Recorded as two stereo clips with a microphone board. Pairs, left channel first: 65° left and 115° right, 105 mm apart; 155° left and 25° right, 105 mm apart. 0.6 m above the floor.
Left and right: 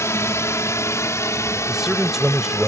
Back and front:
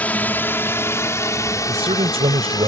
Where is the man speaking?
25° right.